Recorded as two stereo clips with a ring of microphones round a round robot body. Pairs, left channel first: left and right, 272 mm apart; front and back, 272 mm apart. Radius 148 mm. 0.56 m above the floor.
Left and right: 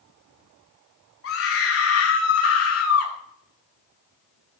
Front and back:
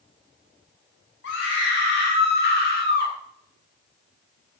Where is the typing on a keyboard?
No typing on a keyboard in this recording.